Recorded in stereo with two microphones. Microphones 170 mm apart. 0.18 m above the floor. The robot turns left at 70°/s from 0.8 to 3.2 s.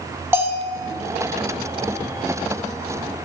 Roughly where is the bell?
Centre.